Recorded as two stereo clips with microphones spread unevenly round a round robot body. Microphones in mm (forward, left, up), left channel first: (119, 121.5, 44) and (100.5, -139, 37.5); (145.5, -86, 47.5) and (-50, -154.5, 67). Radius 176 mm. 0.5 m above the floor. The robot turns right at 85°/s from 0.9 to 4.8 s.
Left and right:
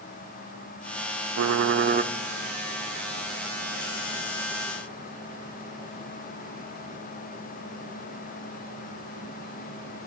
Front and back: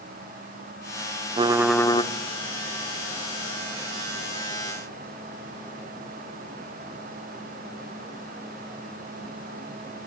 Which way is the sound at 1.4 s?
95° right.